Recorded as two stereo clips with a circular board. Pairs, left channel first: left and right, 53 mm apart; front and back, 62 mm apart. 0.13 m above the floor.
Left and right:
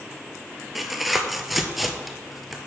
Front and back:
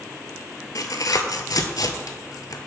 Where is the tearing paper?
Straight ahead, 0.6 m.